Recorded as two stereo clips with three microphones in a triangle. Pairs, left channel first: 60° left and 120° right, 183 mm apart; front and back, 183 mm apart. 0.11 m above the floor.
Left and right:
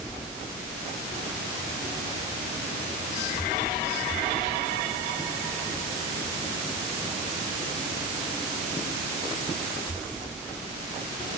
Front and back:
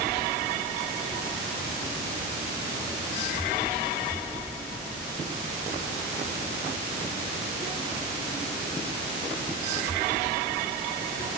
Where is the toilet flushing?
I don't hear a toilet flushing.